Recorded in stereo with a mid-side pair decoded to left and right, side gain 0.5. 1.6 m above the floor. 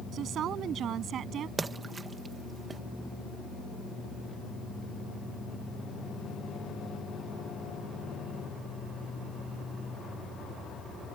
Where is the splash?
30° right.